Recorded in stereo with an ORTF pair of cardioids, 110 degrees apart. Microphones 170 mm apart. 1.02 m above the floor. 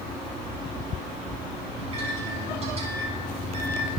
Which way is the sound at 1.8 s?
35° right.